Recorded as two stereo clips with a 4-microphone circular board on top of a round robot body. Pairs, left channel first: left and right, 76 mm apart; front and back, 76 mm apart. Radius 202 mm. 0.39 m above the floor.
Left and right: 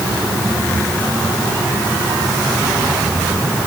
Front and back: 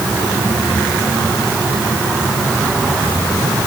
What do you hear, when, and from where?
Only background noise.